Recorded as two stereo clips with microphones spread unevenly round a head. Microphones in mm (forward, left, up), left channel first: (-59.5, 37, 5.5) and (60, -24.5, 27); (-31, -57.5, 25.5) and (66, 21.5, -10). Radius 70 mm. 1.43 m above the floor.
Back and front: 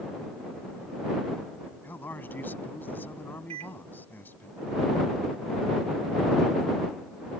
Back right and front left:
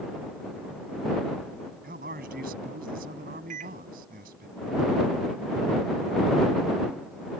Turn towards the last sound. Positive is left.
turn(degrees=15)